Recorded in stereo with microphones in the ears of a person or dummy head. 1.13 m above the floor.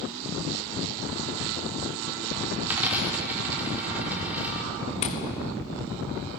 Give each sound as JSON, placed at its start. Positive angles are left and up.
{"t": 2.6, "sound": "a dropped coin", "side_deg": -10, "distance_m": 0.9}
{"t": 5.0, "sound": "tapping", "side_deg": 40, "distance_m": 0.9}